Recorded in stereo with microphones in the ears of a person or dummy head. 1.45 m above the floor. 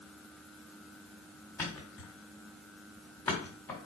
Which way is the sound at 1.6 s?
10° left (ahead or behind).